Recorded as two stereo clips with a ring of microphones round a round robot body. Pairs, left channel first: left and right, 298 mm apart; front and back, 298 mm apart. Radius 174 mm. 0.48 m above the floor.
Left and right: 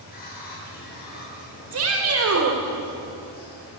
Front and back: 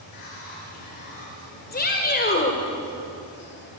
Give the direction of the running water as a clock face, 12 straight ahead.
11 o'clock.